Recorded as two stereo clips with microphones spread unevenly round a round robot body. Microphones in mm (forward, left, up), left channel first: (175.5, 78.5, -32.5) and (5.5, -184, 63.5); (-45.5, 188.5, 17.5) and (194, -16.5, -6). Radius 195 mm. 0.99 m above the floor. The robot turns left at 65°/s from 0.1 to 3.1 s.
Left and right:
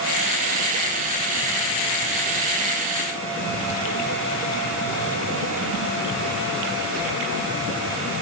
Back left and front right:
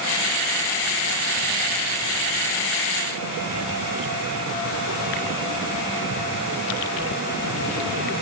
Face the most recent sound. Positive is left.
No sound to turn to.